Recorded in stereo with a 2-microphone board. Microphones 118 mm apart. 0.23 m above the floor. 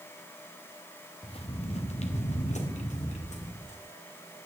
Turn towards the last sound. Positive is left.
turn(degrees=85)